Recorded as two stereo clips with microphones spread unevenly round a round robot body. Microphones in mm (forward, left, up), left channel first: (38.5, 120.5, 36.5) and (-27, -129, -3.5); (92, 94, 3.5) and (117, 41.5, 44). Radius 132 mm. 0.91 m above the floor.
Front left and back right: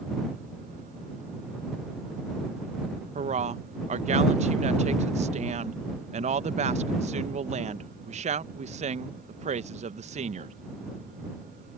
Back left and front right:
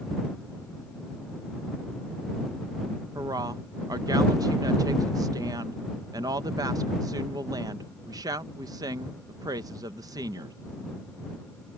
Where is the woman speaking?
120° right.